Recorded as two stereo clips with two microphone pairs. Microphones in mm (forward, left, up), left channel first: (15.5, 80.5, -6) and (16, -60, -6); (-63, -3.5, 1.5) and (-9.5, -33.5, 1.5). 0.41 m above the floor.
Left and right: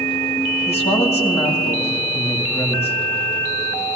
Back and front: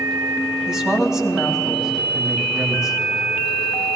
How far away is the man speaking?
About 2.5 m.